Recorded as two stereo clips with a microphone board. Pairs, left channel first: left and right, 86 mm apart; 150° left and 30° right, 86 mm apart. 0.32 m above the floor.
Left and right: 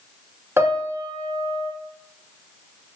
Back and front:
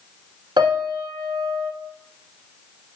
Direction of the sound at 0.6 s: 35° right.